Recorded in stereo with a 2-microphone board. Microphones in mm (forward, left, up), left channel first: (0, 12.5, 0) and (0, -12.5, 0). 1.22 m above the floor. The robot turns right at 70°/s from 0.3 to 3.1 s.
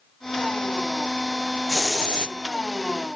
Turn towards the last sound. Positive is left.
turn(degrees=115)